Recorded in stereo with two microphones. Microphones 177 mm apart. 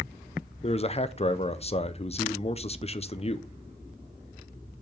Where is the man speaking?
35° left (ahead or behind), 0.5 m.